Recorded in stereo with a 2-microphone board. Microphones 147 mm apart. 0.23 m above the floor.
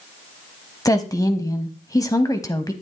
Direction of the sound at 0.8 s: 25° left (ahead or behind).